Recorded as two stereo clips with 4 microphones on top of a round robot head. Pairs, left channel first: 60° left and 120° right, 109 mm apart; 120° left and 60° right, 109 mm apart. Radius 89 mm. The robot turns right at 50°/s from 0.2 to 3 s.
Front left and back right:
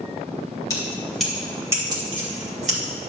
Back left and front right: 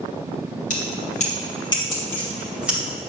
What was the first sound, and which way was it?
Keys jangling, 120° left.